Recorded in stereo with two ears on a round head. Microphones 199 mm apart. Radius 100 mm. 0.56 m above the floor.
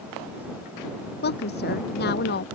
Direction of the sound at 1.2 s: 50° left (ahead or behind).